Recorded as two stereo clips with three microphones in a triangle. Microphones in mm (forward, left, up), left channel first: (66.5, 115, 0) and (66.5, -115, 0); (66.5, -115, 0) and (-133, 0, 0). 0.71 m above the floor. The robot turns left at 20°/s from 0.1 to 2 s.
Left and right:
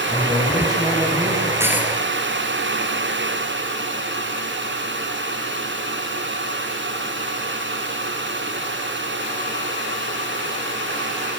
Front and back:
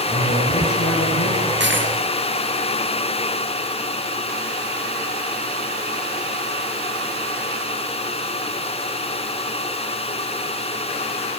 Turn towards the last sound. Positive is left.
turn(degrees=180)